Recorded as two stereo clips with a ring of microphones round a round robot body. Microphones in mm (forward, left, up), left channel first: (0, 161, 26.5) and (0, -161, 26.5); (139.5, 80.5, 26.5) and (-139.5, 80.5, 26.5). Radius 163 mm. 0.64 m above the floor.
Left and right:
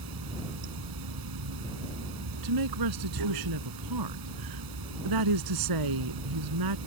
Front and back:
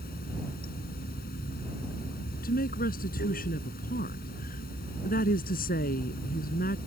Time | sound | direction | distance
0.0 | running water | 65° right | ?
2.4 | a woman speaking | 65° right | ?